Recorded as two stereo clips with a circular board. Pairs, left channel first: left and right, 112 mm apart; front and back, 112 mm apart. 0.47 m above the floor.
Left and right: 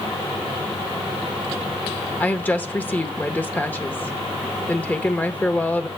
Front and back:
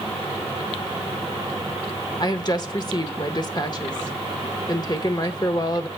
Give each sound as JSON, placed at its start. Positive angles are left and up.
{"t": 2.2, "sound": "a woman speaking", "azimuth_deg": 20, "distance_m": 1.0}